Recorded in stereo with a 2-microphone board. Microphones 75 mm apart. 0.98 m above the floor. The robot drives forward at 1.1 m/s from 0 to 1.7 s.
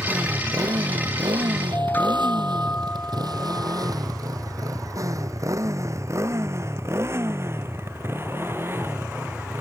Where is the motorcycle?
50° right (ahead or behind); by 9.6 s 30° right (ahead or behind).